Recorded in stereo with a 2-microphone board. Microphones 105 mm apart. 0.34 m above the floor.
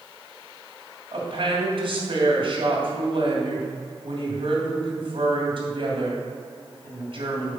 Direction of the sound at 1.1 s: 60° right (ahead or behind).